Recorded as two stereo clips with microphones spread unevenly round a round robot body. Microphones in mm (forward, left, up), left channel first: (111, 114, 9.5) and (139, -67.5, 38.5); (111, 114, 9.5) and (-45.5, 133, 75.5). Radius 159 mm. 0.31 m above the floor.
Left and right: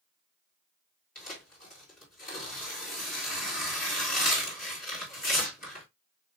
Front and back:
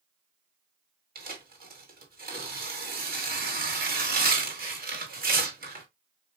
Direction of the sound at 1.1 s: 135° left.